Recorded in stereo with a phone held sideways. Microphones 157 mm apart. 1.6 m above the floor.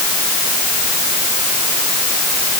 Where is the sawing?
I don't hear sawing.